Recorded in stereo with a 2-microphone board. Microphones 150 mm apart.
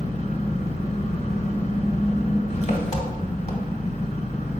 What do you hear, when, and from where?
0.0 s an engine running: 50° left (ahead or behind), 1.1 m